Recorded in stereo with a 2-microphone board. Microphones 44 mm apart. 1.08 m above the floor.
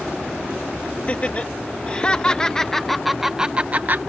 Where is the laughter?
35° left (ahead or behind); by 4.0 s 45° right (ahead or behind).